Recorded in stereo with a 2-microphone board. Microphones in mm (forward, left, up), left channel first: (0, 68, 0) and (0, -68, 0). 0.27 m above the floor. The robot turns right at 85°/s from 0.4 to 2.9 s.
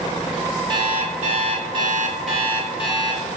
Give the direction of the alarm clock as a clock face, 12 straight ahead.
5 o'clock.